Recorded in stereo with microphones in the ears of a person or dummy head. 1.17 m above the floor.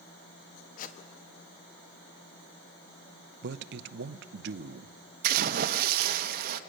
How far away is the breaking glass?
No breaking glass in this recording.